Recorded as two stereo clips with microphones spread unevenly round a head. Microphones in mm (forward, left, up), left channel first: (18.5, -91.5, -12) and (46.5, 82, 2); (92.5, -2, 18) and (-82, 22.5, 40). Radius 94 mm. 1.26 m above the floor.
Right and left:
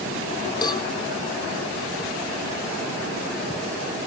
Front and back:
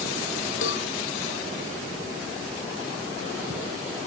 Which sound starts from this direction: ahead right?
A cowbell, at 0.6 s.